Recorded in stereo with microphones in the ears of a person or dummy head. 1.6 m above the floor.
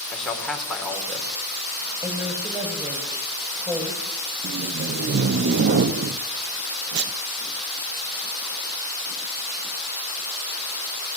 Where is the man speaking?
5° left (ahead or behind), 5 m.